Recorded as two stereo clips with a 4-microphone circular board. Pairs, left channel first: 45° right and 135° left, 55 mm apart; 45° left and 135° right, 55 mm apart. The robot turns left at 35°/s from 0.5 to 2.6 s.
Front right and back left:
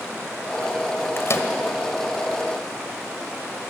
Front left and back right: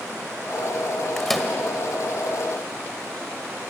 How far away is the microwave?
About 1.8 m.